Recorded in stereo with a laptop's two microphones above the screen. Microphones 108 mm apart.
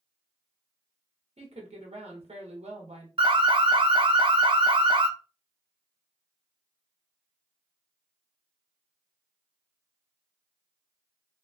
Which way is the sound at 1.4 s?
65° right (ahead or behind).